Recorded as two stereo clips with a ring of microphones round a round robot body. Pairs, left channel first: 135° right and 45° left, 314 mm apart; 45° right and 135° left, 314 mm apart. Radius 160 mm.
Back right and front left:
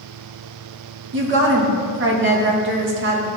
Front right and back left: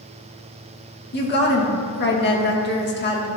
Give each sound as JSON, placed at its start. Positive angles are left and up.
{"t": 1.1, "sound": "a woman speaking", "azimuth_deg": 5, "distance_m": 1.3}